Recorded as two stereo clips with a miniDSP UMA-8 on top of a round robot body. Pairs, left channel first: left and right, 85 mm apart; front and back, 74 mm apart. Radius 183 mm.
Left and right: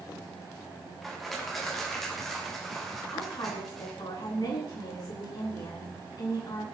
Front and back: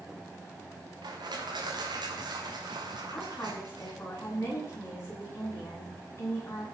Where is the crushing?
Straight behind, 3 m.